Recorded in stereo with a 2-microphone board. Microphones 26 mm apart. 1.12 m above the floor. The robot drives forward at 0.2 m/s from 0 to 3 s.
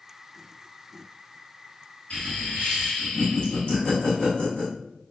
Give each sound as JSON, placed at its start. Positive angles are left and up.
{"t": 2.1, "sound": "laughter", "side_deg": 45, "distance_m": 1.3}